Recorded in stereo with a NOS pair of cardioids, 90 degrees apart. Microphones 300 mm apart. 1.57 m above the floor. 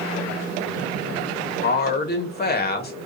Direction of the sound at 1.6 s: 30° left.